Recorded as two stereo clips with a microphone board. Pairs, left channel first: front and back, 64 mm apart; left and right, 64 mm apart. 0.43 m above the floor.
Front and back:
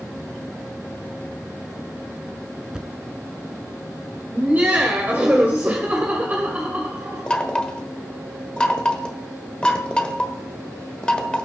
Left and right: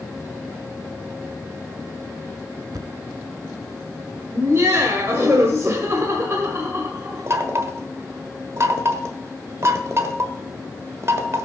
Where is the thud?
100° right, 0.8 m.